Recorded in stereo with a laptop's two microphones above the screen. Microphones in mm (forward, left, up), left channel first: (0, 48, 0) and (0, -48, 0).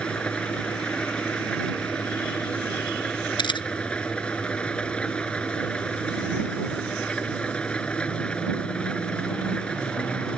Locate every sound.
0.0 s an engine running: 10° left (ahead or behind)
3.4 s a camera shutter: 55° left (ahead or behind)